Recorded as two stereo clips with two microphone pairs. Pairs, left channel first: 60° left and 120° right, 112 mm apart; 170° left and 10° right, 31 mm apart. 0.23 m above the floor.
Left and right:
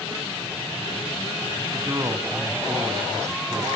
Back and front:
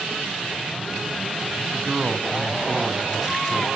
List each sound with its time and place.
1.7 s a man speaking: 75° right, 1.7 m